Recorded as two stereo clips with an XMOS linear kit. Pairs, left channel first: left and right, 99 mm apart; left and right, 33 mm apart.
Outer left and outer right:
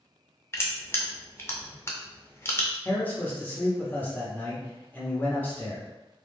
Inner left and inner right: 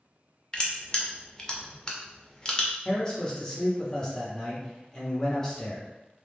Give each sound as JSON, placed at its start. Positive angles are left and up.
{"t": 0.5, "sound": "crushing", "side_deg": 25, "distance_m": 0.5}
{"t": 2.9, "sound": "a man speaking", "side_deg": 15, "distance_m": 0.7}